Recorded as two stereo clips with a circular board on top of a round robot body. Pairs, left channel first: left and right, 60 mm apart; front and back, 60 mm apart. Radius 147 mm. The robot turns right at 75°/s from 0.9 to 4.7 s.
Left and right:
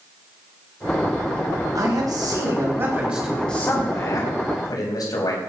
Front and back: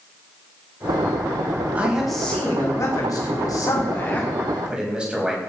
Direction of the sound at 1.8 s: 115° right.